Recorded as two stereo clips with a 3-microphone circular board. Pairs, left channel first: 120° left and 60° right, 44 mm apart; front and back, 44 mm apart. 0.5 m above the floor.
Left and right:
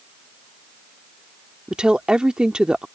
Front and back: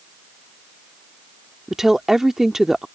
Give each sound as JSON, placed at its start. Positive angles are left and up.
{"t": 1.7, "sound": "a woman speaking", "azimuth_deg": -105}